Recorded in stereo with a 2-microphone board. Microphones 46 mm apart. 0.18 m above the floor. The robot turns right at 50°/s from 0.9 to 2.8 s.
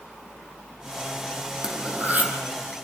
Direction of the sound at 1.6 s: 170° right.